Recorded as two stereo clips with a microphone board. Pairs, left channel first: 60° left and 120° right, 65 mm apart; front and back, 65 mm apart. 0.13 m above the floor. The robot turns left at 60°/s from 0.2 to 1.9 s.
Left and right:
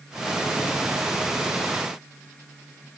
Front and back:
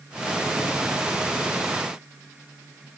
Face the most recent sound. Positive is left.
No sound to turn to.